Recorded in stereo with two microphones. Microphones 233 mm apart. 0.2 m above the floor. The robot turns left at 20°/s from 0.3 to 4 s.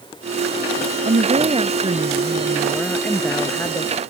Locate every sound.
1.1 s a woman speaking: 140° right; by 4.0 s 160° left